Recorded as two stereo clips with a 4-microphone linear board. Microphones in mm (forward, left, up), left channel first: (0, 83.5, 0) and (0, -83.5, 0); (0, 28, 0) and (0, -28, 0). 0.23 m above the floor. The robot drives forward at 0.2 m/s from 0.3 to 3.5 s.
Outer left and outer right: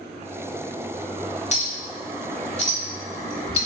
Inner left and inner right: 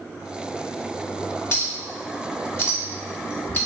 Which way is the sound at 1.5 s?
40° left (ahead or behind).